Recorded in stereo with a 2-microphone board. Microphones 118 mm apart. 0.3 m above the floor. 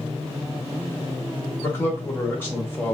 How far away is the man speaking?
About 0.9 m.